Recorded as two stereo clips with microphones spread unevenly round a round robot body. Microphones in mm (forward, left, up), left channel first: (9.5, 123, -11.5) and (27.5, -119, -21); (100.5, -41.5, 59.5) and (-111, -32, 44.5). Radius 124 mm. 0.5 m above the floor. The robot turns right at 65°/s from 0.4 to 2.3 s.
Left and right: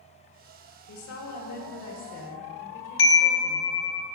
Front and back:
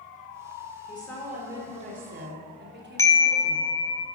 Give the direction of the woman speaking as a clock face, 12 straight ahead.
10 o'clock.